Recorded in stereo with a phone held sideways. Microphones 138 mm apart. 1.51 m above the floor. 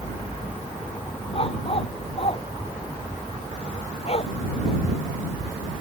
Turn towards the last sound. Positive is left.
turn(degrees=50)  # may be behind; listen again after turning